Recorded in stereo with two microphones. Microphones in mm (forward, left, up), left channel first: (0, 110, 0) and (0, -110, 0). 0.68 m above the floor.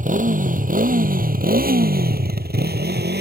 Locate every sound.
0.0 s a motorcycle: 35° right (ahead or behind); by 3.2 s 50° right (ahead or behind)